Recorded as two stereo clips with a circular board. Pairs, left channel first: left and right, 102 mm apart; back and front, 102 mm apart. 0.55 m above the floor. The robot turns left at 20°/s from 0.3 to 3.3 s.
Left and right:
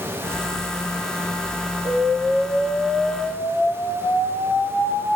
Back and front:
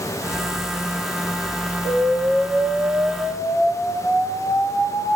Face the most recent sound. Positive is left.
turn(degrees=140)